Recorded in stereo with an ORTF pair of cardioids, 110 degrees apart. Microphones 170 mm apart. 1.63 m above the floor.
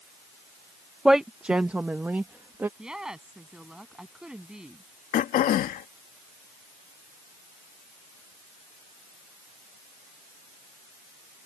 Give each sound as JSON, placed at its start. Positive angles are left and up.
{"t": 1.1, "sound": "a woman speaking", "azimuth_deg": -5}
{"t": 2.8, "sound": "a woman speaking", "azimuth_deg": -5}
{"t": 5.1, "sound": "throat clearing", "azimuth_deg": 65}